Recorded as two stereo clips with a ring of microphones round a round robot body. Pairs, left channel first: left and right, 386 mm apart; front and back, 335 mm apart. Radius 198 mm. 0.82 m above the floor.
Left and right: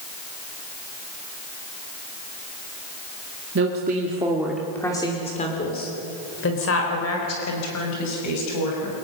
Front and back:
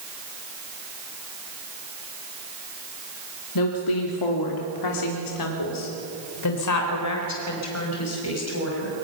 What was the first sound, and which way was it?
A woman speaking, 30° right.